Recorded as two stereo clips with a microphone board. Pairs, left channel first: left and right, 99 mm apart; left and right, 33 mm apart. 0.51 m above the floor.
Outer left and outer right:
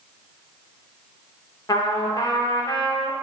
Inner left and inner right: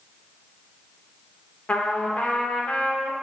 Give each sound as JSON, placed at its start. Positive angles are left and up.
{"t": 1.7, "sound": "a trumpet", "side_deg": 45, "distance_m": 0.6}